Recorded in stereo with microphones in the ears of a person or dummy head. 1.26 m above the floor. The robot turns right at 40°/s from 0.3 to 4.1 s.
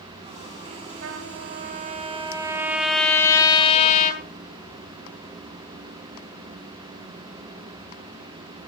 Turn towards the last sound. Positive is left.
turn(degrees=50)